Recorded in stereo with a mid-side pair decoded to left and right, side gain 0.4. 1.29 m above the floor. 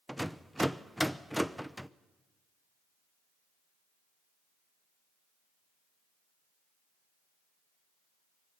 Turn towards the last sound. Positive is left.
turn(degrees=-5)